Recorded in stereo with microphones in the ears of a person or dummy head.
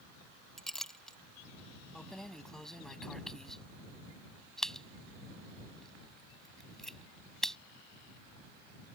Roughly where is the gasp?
I don't hear a gasp.